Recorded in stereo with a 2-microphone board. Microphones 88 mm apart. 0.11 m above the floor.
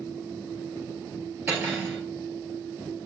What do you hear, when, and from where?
1.5 s cutlery clinking: 25° right (ahead or behind), 1.1 m